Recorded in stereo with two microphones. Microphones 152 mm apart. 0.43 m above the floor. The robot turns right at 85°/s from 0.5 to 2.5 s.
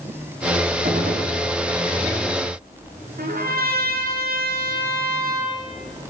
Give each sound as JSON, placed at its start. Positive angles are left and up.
{"t": 0.8, "sound": "a gunshot", "azimuth_deg": -120, "distance_m": 5.5}
{"t": 3.2, "sound": "a trumpet", "side_deg": -80, "distance_m": 7.0}